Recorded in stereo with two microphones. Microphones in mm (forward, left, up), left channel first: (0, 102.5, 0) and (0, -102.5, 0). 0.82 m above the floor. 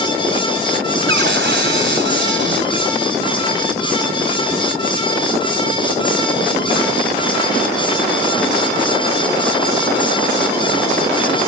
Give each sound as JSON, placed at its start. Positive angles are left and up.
{"t": 1.1, "sound": "a cupboard door", "side_deg": -65}